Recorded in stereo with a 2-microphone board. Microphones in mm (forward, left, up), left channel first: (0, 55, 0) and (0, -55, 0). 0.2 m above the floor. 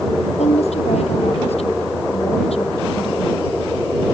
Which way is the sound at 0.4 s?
75° left (ahead or behind).